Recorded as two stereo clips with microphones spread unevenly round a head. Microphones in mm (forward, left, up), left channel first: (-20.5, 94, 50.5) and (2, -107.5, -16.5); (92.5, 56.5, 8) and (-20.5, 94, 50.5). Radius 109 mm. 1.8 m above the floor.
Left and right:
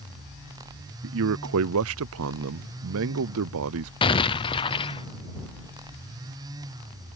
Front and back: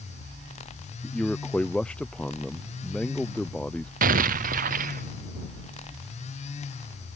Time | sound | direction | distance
1.0 | a man speaking | 110° right | ?
4.0 | an explosion | 165° left | ?